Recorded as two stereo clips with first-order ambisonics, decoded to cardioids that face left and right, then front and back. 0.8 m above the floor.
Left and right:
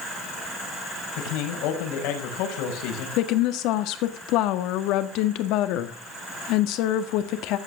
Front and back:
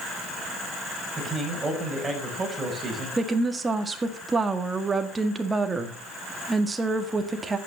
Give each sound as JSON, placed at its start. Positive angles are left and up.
{"t": 1.2, "sound": "a man speaking", "azimuth_deg": 100, "distance_m": 5.0}
{"t": 3.2, "sound": "a woman speaking", "azimuth_deg": 105, "distance_m": 1.7}